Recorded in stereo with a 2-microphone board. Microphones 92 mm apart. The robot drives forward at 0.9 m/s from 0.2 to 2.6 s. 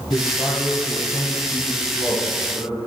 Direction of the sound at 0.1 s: 55° left (ahead or behind).